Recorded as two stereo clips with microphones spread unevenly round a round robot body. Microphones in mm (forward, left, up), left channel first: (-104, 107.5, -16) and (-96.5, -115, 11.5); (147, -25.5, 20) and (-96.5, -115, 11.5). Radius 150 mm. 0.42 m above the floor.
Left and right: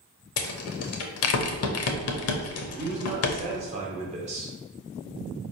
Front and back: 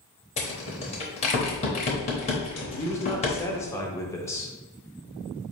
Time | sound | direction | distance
0.4 | a rattle | 90° left | 0.6 m
2.7 | a man speaking | 50° right | 0.8 m